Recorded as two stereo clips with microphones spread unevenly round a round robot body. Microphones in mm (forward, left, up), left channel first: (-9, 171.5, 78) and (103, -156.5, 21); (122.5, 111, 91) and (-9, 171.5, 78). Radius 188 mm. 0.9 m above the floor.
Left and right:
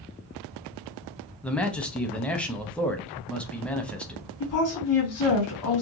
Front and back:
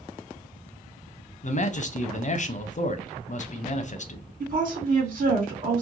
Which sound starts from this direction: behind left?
A woman speaking, at 4.4 s.